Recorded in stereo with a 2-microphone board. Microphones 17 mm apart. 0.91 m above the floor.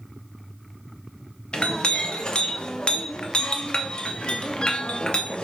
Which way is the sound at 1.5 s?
75° left (ahead or behind).